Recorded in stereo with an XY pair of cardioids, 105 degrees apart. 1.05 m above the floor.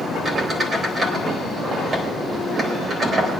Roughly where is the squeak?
Ahead right.